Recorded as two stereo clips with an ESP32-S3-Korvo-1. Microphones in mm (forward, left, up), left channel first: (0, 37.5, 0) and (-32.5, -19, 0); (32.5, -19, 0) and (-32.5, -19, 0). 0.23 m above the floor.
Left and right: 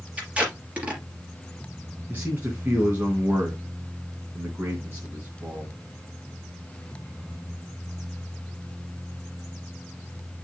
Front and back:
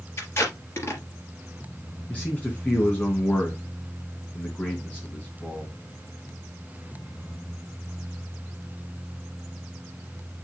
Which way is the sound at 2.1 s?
65° right.